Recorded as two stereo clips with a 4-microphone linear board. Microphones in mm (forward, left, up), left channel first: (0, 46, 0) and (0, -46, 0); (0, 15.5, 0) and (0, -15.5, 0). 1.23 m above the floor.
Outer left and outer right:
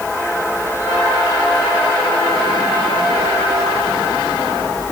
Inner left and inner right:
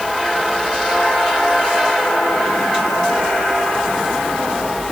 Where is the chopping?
No chopping in this recording.